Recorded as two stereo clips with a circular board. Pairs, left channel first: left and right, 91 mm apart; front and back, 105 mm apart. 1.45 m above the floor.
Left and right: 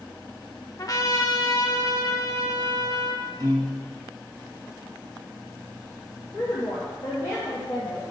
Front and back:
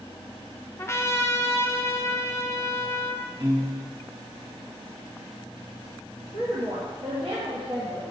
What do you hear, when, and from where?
0.8 s a trumpet: 55° left, 0.7 m
3.4 s a piano: 140° right, 1.3 m
6.3 s a woman speaking: 140° left, 2.0 m